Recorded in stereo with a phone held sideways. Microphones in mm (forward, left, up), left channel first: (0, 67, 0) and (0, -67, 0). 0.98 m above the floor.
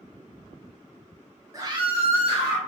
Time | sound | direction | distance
1.5 | a scream | 25° right (ahead or behind) | 0.8 m